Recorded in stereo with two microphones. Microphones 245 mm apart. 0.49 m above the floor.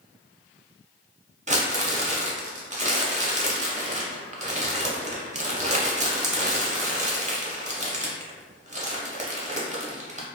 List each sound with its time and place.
1.5 s crumpling: 30° right (ahead or behind), 0.6 m